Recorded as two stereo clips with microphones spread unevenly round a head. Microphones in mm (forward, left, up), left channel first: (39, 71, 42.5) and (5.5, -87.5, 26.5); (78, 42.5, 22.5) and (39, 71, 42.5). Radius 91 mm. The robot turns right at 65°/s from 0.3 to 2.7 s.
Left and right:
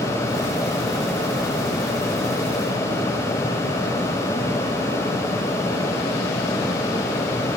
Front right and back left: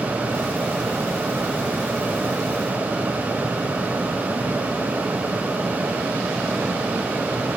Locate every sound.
Only background noise.